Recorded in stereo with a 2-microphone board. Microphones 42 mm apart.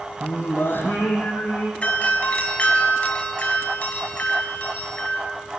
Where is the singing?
60° left (ahead or behind), 4.5 m.